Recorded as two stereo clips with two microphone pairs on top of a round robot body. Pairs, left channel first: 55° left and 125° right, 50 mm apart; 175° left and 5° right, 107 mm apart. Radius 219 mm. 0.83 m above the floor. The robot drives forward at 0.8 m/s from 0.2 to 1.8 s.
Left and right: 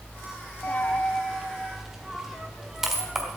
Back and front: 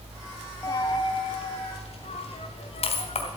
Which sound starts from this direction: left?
A dropped coin, at 0.6 s.